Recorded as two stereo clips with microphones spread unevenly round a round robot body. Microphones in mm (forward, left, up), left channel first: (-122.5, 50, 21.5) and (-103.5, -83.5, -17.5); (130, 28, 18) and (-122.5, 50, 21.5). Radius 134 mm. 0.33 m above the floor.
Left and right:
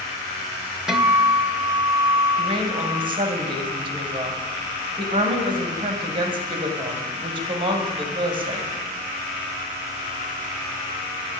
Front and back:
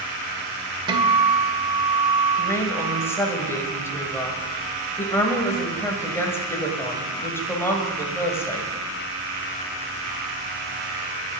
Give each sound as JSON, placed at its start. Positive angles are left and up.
{"t": 0.9, "sound": "a guitar", "azimuth_deg": -130, "distance_m": 1.3}
{"t": 2.4, "sound": "a woman speaking", "azimuth_deg": -85, "distance_m": 2.0}